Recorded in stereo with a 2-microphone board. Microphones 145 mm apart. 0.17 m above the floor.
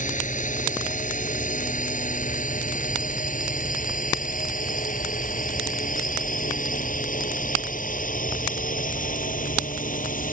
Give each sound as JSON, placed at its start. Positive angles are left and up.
{"t": 0.0, "sound": "a drone", "side_deg": 60}